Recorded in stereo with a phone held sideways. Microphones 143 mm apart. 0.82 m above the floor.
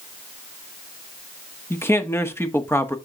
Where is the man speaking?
20° left (ahead or behind), 1.0 m.